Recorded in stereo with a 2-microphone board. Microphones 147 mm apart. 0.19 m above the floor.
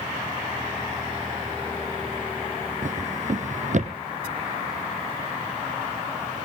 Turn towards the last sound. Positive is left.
turn(degrees=-55)  # may be behind; listen again after turning